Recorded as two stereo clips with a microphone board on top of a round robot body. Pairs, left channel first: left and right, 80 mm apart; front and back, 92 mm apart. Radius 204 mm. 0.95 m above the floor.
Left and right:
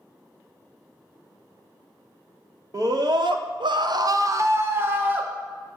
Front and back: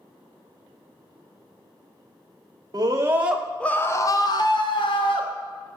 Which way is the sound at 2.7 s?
130° right.